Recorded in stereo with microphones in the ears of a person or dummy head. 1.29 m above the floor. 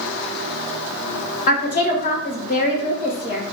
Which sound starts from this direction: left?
A woman speaking, at 1.5 s.